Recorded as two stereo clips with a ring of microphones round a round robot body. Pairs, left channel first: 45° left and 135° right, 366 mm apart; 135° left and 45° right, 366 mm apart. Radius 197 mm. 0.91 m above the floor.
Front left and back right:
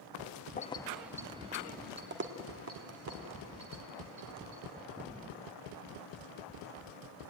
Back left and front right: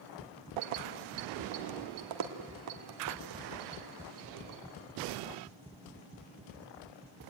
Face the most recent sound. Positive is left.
turn(degrees=-90)